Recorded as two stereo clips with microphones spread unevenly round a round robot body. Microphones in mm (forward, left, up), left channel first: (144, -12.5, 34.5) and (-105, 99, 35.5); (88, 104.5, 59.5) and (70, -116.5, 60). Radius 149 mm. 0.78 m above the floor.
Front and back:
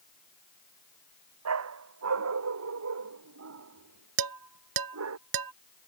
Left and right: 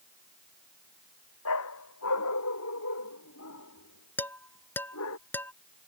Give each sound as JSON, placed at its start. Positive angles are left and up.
{"t": 1.4, "sound": "a dog barking", "azimuth_deg": 125}
{"t": 4.2, "sound": "dishes clattering", "azimuth_deg": 170}